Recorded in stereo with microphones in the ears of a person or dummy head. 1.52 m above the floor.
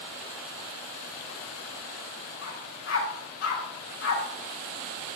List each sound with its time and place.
2.4 s a dog barking: 75° left (ahead or behind), 5 m